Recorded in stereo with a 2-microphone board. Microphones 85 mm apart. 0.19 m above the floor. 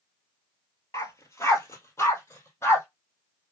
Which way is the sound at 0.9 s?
35° left (ahead or behind).